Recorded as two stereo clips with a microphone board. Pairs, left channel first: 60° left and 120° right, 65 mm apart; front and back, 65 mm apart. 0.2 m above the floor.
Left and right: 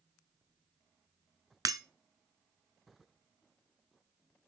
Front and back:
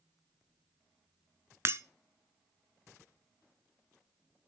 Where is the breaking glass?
135° right, 0.6 m.